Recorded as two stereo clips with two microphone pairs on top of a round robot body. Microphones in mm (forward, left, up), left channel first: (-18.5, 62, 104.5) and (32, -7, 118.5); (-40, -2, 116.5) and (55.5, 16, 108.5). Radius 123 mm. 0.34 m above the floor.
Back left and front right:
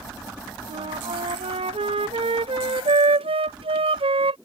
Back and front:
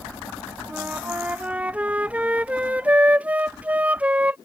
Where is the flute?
65° right.